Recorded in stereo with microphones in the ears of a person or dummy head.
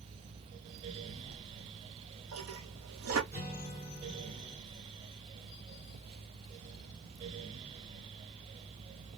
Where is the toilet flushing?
70° right (ahead or behind), 0.6 m.